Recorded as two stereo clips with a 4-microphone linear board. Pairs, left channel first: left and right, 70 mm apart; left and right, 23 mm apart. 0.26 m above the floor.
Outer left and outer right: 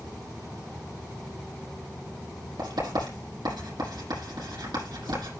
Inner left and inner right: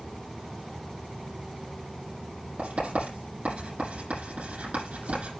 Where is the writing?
80° right, 9 m.